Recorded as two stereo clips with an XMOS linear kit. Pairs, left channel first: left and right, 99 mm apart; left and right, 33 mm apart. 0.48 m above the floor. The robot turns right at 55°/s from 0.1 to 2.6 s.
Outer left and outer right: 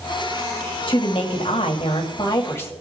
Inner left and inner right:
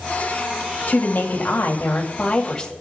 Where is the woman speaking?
60° left, 2 m; by 2.7 s 155° left, 2 m.